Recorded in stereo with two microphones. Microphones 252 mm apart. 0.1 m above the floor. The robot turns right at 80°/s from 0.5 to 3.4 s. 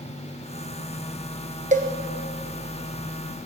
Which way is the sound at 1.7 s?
30° right (ahead or behind).